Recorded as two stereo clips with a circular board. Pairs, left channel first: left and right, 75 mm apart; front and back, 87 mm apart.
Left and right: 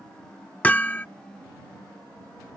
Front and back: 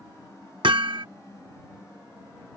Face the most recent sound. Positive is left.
turn(degrees=160)